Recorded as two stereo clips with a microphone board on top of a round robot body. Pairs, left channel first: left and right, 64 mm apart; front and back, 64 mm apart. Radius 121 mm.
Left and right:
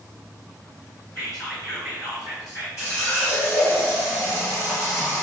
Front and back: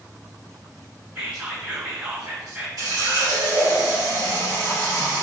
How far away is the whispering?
About 1.8 m.